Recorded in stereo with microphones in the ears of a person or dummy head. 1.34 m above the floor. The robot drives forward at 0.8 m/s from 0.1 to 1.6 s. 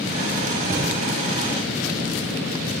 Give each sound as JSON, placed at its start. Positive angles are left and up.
{"t": 0.7, "sound": "a thud", "side_deg": -15, "distance_m": 0.9}